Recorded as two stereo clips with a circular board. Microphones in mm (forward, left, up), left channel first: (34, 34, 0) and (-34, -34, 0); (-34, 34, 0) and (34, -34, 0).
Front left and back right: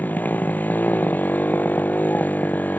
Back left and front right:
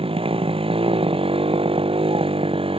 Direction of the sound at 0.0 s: 25° right.